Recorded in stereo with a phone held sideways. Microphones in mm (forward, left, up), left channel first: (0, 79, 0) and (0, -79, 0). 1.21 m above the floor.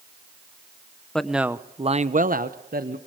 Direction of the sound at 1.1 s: 5° left (ahead or behind).